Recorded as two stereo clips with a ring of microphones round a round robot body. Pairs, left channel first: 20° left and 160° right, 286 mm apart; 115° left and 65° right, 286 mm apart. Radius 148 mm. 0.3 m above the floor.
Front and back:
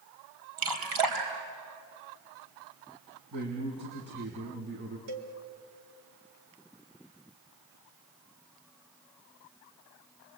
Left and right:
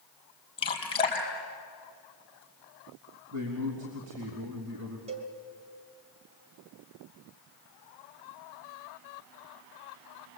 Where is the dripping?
175° right, 3.5 m.